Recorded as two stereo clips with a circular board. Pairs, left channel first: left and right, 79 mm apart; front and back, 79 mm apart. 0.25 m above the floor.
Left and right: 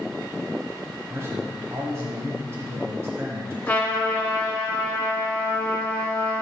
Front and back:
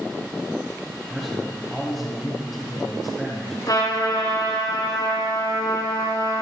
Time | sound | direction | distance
1.1 | a man speaking | 90° right | 1.3 m
3.7 | a trumpet | 20° left | 2 m